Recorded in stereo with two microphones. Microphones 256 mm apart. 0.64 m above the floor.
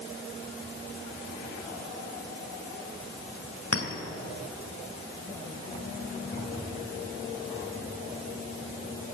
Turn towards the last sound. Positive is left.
turn(degrees=60)  # may be behind; listen again after turning